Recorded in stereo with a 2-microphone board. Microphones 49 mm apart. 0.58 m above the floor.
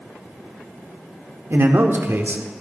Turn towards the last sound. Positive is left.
turn(degrees=-60)  # may be behind; listen again after turning